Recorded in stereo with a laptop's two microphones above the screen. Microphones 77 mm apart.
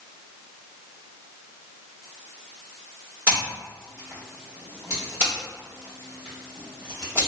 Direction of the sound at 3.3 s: 25° right (ahead or behind).